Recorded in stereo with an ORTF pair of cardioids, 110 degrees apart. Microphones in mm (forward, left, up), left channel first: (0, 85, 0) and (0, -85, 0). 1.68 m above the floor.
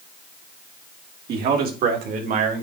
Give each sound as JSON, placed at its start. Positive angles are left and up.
{"t": 1.3, "sound": "a man speaking", "azimuth_deg": -70, "distance_m": 3.0}